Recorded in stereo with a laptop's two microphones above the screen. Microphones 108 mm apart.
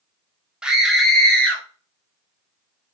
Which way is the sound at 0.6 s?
10° right (ahead or behind).